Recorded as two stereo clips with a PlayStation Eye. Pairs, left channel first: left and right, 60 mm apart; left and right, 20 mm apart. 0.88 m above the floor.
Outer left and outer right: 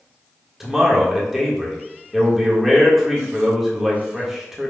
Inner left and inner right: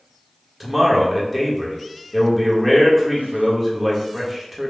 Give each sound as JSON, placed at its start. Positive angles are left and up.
{"t": 0.6, "sound": "a man speaking", "side_deg": -5, "distance_m": 1.3}